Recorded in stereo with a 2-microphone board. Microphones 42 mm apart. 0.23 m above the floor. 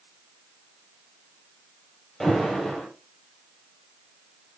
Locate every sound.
2.2 s an alarm: 5° left (ahead or behind), 7.5 m